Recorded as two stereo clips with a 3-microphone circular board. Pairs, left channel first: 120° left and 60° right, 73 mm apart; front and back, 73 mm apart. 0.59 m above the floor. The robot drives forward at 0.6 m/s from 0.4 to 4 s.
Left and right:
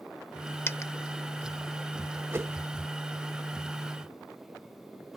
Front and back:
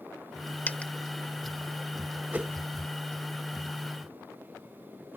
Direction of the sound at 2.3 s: 115° right.